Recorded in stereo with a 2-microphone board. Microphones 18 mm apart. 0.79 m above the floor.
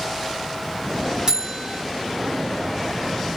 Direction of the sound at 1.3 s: 40° right (ahead or behind).